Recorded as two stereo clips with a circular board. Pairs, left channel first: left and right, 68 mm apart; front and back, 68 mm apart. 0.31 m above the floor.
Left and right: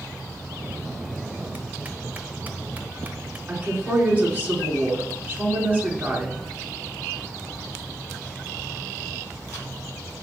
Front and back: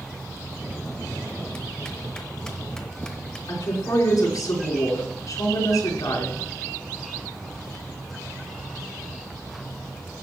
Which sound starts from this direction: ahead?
A woman speaking, at 3.5 s.